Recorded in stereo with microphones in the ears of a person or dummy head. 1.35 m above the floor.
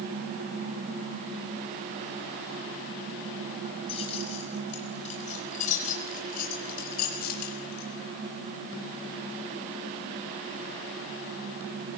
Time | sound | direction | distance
3.9 | keys jangling | 30° left (ahead or behind) | 6 m